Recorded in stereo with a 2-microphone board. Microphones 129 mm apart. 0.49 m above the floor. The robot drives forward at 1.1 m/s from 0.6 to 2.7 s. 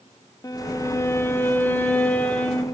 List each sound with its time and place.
0.4 s a violin: 25° left (ahead or behind), 1.0 m; by 2.6 s 10° left (ahead or behind), 2.5 m